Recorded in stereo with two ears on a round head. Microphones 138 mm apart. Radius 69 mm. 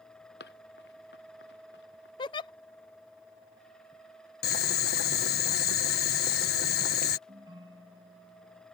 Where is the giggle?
30° left (ahead or behind).